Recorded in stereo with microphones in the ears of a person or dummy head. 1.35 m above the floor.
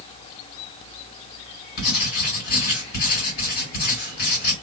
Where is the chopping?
No chopping in this recording.